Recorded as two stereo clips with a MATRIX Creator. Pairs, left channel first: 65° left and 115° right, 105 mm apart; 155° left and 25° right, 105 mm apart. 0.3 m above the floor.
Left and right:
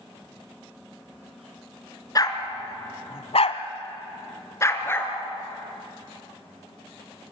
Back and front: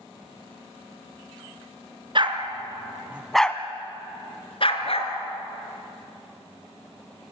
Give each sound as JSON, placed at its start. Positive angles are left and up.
{"t": 2.1, "sound": "a dog barking", "azimuth_deg": 15, "distance_m": 2.0}